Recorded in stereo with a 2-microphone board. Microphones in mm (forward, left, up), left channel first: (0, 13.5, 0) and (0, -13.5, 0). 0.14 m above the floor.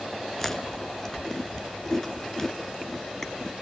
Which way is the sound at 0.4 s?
15° left (ahead or behind).